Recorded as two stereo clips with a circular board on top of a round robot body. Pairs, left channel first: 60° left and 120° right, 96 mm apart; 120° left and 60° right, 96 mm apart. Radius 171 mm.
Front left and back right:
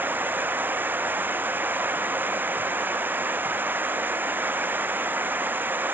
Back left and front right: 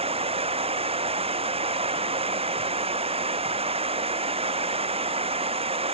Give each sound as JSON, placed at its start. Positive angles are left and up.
{"t": 0.0, "sound": "running water", "azimuth_deg": -50}